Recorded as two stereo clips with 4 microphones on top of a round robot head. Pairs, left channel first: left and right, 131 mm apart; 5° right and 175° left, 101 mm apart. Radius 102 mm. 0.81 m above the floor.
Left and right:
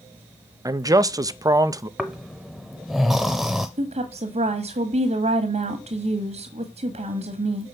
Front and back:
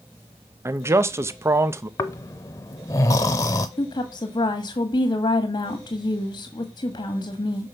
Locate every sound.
0.7 s a man speaking: 140° right, 0.7 m
2.0 s snoring: 5° right, 0.5 m
3.8 s a woman speaking: 55° right, 1.5 m